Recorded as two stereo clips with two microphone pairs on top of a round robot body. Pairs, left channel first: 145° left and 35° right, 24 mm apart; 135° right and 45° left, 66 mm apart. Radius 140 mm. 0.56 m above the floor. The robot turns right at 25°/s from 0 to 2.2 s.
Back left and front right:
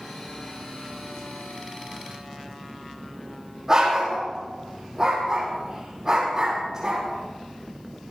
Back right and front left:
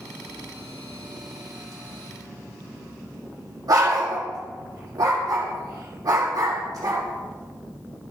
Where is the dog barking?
30° left, 8.5 m.